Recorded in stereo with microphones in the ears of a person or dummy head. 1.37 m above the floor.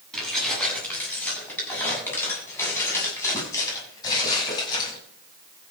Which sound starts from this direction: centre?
Keys jangling, at 0.1 s.